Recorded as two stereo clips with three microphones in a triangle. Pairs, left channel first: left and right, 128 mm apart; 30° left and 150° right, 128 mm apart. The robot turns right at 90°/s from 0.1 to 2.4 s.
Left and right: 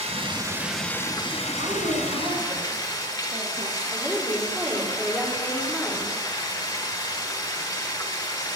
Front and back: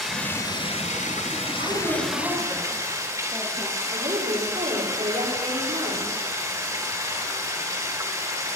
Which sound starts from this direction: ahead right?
Running water, at 0.0 s.